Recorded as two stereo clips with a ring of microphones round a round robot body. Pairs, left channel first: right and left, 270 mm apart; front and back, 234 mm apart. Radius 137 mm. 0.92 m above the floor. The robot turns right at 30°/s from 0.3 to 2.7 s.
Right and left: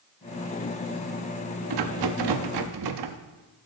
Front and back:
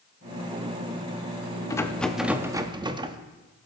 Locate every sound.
1.7 s a rattle: 75° left, 0.9 m; by 3.2 s 105° left, 0.9 m